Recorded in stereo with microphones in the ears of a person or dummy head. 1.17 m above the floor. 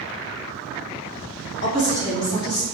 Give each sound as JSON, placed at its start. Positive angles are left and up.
{"t": 1.6, "sound": "a woman speaking", "side_deg": 50, "distance_m": 1.6}